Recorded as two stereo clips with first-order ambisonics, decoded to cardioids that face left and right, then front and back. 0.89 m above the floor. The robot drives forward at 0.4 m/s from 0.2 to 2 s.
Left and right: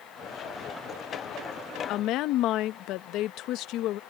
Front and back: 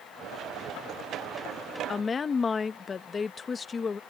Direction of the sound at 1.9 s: 65° left.